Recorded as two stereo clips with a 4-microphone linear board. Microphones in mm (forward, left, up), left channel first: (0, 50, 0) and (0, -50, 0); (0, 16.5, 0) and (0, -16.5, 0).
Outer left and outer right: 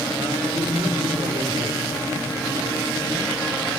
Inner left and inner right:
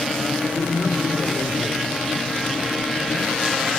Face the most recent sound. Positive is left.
turn(degrees=-75)  # may be behind; listen again after turning